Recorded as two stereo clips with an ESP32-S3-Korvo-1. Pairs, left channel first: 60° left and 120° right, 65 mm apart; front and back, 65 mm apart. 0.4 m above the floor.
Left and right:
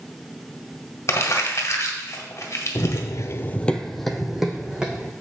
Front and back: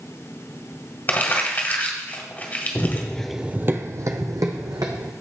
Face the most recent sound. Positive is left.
turn(degrees=165)